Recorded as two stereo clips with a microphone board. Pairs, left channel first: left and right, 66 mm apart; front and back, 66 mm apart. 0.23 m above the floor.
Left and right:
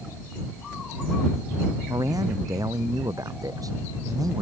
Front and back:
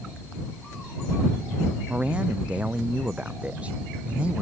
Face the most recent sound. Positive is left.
turn(degrees=-110)